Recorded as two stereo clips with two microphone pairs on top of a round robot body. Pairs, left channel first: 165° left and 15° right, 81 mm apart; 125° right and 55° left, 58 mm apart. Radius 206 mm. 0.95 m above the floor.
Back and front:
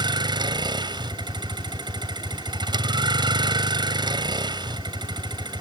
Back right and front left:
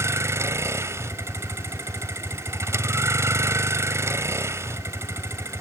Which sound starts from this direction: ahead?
A vehicle, at 0.0 s.